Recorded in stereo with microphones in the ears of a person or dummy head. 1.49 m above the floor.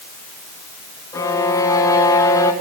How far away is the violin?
About 2.5 m.